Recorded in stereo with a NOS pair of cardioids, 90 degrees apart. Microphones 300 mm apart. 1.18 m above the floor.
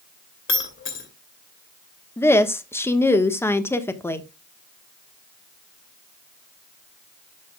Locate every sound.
0.5 s breaking glass: 40° left, 2.5 m
2.2 s a woman speaking: 10° left, 1.2 m